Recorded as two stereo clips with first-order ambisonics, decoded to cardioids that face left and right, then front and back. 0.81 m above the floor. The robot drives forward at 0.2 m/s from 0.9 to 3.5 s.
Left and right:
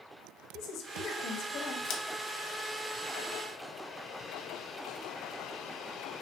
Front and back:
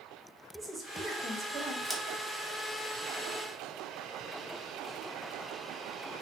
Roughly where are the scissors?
Left.